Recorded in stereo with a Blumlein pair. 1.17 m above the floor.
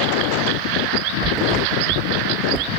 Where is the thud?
20° right.